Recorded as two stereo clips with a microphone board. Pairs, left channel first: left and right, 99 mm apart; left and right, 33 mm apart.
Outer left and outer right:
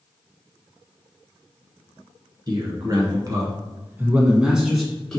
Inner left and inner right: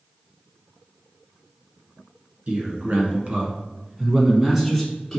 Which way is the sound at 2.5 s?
45° right (ahead or behind).